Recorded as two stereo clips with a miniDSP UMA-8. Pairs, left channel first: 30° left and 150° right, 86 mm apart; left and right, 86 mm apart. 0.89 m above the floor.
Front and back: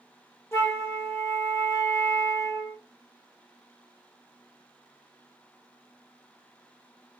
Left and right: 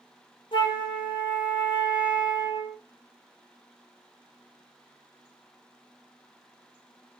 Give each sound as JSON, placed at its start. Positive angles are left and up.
{"t": 0.5, "sound": "a flute", "azimuth_deg": 90, "distance_m": 0.9}